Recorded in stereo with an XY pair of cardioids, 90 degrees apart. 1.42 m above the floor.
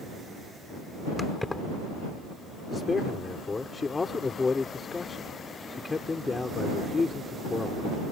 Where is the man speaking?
30° left.